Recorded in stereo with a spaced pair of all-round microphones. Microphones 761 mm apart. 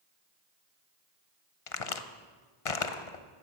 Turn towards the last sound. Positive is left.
turn(degrees=50)  # may be behind; listen again after turning